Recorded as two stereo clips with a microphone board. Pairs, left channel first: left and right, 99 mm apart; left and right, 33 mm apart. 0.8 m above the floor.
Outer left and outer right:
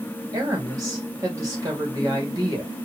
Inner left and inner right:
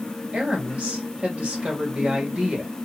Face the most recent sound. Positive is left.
turn(degrees=-35)  # may be behind; listen again after turning